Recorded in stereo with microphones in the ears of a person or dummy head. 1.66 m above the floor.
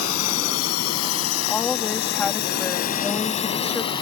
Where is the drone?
90° left; by 4.0 s 20° left (ahead or behind).